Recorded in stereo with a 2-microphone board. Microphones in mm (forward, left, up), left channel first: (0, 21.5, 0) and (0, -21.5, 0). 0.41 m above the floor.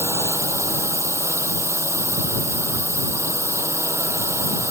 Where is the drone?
80° right.